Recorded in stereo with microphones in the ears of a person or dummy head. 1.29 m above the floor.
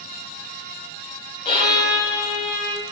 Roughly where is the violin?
Left.